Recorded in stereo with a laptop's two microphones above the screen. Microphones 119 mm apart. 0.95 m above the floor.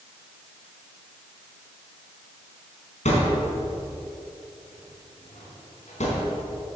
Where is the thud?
80° left, 4 m.